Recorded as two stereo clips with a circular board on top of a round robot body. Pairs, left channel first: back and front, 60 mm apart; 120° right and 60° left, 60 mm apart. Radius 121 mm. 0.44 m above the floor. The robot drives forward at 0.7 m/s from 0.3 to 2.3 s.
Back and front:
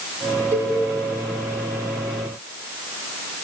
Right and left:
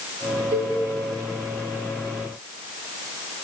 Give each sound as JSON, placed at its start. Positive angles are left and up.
{"t": 0.5, "sound": "a cowbell", "azimuth_deg": 40, "distance_m": 2.5}